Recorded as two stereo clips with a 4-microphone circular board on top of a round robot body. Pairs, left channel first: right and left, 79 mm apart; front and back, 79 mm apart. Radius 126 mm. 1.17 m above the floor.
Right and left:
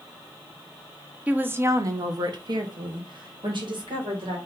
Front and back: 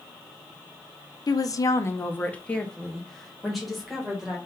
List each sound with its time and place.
1.3 s a woman speaking: 20° left, 0.8 m; by 4.4 s 95° left, 2.5 m